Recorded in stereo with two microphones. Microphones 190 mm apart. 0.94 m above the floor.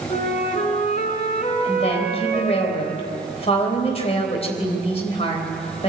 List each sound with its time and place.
0.1 s a flute: 45° left (ahead or behind), 3.5 m
1.6 s a woman speaking: 35° left (ahead or behind), 3.5 m